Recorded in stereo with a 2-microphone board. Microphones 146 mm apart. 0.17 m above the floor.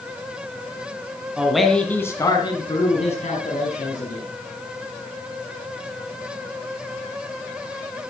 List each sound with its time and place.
1.4 s a man speaking: 5° right (ahead or behind), 1.8 m; by 4.2 s 60° left (ahead or behind), 3 m